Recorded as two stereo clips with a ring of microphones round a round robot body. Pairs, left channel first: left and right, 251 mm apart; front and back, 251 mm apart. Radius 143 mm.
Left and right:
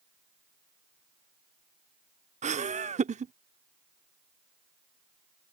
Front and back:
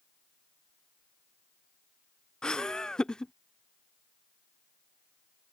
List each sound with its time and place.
2.4 s laughter: 85° right